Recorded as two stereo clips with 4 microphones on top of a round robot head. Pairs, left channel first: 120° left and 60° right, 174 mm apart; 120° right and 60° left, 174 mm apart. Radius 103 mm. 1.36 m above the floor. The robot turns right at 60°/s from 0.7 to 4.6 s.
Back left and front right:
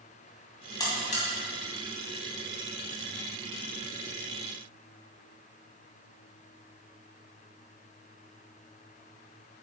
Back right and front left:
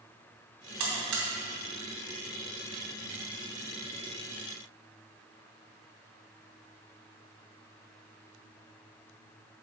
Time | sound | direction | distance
0.8 | a buzzer | 50° left | 2.5 m